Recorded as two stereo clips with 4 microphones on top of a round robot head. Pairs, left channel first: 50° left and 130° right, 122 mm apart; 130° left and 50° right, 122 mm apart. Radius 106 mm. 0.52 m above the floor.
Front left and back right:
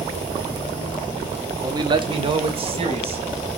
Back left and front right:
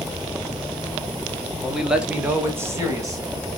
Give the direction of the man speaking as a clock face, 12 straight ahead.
5 o'clock.